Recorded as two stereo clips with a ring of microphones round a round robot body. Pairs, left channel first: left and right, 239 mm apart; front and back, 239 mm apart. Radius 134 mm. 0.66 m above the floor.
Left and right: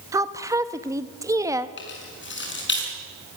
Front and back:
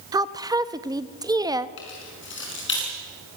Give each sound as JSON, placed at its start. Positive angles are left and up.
{"t": 0.1, "sound": "a woman speaking", "azimuth_deg": -140, "distance_m": 0.8}
{"t": 1.8, "sound": "keys jangling", "azimuth_deg": 50, "distance_m": 6.0}